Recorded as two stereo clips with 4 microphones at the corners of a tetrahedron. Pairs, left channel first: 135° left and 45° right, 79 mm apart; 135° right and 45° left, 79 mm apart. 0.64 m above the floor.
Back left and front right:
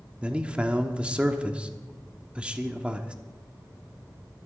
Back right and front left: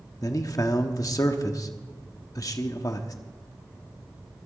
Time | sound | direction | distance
0.2 | a man speaking | 115° right | 1.2 m